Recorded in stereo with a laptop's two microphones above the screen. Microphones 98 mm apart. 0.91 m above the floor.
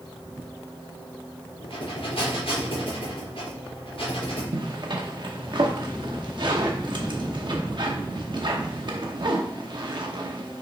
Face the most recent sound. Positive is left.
turn(degrees=-55)  # may be behind; listen again after turning